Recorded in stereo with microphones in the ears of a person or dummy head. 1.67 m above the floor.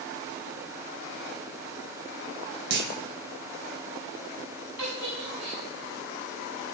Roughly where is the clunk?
Right.